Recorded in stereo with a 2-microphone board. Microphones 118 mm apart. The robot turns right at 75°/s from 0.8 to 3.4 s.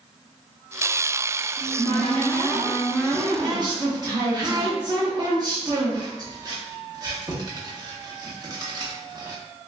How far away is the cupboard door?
About 1.0 m.